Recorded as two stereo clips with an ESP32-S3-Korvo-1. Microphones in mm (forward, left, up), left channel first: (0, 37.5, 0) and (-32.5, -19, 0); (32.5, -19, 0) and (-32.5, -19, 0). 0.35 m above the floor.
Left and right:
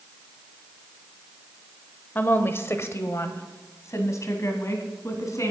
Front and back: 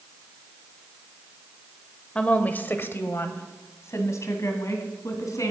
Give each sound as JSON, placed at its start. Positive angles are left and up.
{"t": 2.1, "sound": "a woman speaking", "azimuth_deg": 55, "distance_m": 1.1}